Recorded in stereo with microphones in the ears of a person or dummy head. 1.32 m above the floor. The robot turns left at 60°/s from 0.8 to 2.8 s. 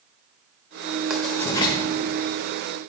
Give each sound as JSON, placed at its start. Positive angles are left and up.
{"t": 1.1, "sound": "writing", "side_deg": 0, "distance_m": 1.1}